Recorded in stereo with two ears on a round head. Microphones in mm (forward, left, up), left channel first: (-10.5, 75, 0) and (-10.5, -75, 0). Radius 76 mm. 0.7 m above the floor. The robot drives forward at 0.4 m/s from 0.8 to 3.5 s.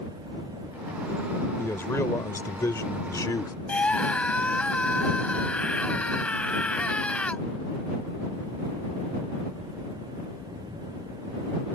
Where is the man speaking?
15° left (ahead or behind); by 3.5 s 20° left (ahead or behind).